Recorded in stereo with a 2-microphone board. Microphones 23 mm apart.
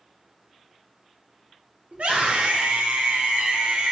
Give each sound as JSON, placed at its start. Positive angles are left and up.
{"t": 1.9, "sound": "a scream", "side_deg": -75, "distance_m": 2.5}